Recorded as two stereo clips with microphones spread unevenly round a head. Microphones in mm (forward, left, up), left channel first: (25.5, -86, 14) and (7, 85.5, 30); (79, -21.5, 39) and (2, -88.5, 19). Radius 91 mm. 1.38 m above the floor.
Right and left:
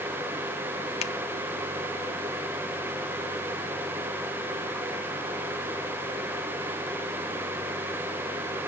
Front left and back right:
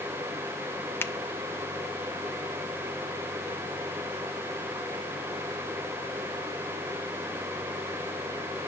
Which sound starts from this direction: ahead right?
A finger snap, at 1.0 s.